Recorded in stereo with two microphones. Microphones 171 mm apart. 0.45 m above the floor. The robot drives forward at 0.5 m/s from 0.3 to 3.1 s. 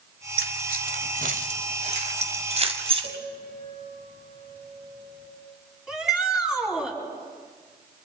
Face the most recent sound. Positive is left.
turn(degrees=-5)  # may be behind; listen again after turning